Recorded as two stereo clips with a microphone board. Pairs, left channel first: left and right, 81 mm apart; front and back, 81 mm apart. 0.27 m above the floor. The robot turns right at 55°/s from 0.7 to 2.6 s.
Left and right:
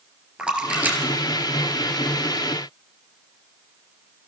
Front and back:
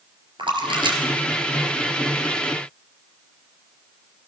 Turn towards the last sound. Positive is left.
turn(degrees=-65)